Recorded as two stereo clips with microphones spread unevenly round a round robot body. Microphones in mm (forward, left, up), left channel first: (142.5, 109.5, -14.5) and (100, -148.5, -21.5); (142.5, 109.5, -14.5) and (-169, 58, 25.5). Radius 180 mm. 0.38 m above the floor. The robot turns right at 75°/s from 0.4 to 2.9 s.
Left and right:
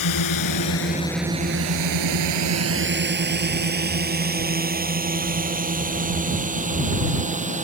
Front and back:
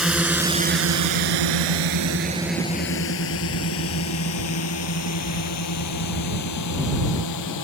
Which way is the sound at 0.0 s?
100° left.